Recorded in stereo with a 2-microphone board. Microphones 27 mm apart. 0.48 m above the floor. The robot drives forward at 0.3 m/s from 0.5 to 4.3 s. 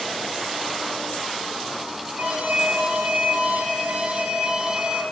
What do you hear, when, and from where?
2.2 s an alarm: 50° right (ahead or behind), 4.5 m; by 5.0 s 55° right (ahead or behind), 4 m